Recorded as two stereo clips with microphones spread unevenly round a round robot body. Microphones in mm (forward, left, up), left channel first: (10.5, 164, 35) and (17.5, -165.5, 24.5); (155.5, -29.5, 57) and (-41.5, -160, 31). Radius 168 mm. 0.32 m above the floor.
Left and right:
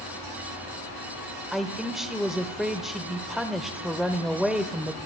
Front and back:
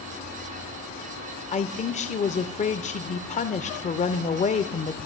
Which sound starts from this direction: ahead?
A man speaking, at 1.5 s.